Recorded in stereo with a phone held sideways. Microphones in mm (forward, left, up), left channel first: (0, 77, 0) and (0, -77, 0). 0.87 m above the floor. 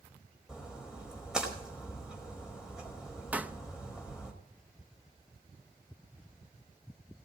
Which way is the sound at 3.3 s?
10° right (ahead or behind).